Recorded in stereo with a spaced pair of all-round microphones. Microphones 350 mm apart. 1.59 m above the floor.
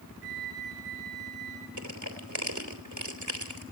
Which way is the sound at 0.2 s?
80° right.